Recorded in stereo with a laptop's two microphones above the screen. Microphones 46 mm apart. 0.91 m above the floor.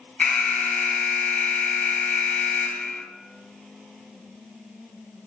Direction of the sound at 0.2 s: 35° left (ahead or behind).